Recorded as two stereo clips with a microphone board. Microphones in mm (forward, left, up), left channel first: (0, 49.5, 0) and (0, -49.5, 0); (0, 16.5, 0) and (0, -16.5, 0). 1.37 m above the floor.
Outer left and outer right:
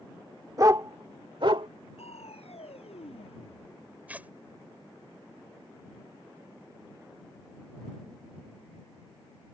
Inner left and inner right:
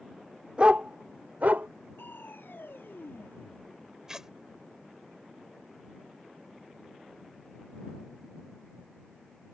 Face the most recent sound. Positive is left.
turn(degrees=-15)  # may be behind; listen again after turning